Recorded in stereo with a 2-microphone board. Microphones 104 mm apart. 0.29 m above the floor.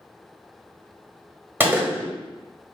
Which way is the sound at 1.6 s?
20° right (ahead or behind).